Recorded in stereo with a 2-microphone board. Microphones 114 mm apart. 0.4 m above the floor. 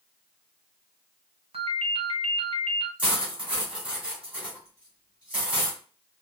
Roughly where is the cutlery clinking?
Centre.